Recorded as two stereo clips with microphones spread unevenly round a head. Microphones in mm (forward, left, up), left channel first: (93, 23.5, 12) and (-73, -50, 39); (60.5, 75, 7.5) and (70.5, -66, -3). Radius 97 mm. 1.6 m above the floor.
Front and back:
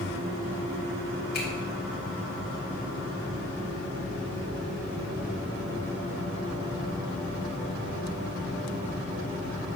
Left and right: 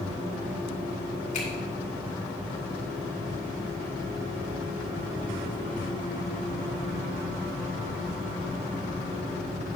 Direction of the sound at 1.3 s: 65° left.